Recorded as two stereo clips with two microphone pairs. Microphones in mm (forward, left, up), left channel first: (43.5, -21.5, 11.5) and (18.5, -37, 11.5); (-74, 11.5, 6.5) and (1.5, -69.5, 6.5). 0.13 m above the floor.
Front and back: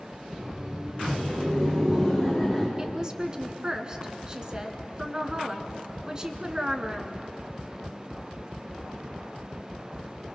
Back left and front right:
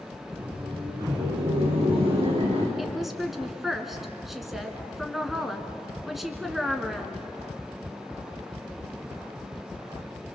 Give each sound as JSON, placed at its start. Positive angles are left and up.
{"t": 0.3, "sound": "laughter", "azimuth_deg": -85, "distance_m": 4.5}
{"t": 2.8, "sound": "a woman speaking", "azimuth_deg": -135, "distance_m": 1.4}